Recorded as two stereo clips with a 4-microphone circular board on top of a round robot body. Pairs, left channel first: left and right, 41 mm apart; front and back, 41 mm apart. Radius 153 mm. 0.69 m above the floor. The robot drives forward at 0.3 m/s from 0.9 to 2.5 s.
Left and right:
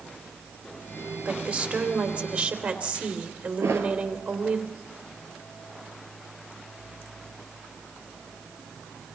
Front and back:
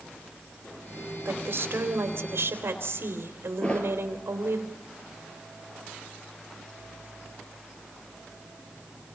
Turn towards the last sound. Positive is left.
turn(degrees=-65)